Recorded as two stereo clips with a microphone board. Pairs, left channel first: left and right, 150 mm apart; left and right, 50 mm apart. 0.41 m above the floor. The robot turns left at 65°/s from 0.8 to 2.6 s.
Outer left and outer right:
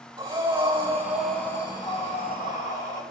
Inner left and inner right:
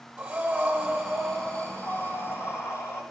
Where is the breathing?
150° right, 4 m; by 3.0 s 90° left, 4 m.